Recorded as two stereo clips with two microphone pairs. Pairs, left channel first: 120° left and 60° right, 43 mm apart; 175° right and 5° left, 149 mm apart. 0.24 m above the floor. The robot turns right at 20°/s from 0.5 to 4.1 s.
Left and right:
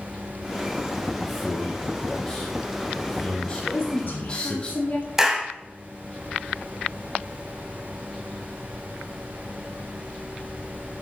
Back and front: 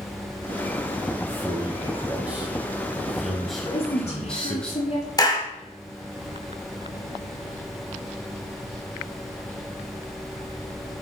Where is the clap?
135° right, 1.0 m.